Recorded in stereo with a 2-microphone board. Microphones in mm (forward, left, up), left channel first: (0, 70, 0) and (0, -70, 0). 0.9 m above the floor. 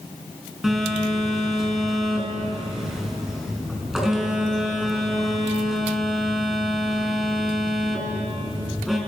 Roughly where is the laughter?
No laughter in this recording.